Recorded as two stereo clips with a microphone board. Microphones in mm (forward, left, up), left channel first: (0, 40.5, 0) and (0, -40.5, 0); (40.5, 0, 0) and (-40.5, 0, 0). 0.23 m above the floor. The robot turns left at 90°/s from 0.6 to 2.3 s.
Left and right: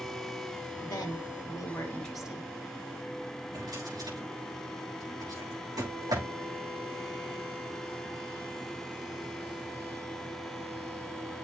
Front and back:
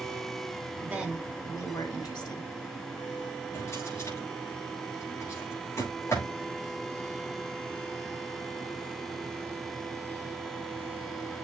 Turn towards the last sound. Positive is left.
turn(degrees=-55)